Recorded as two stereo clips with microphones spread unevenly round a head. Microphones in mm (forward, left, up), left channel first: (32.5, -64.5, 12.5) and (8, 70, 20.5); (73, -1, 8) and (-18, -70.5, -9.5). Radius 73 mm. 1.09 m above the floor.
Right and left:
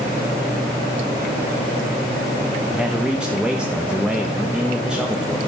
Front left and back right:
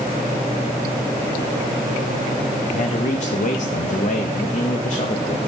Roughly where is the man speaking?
Ahead.